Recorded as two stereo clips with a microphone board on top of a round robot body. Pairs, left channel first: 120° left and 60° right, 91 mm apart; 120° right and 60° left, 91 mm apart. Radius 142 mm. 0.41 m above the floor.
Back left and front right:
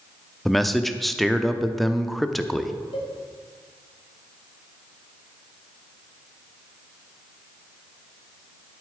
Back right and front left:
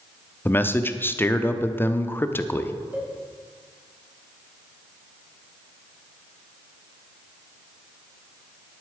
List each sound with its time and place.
0.5 s a man speaking: 150° right, 0.9 m
2.9 s a cowbell: 135° left, 2.5 m